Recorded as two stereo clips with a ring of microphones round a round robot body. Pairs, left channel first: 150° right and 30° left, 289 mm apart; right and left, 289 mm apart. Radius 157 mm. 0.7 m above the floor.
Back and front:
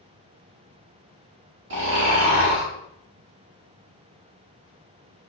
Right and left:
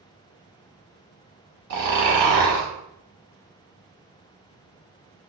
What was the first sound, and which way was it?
Snoring, 70° left.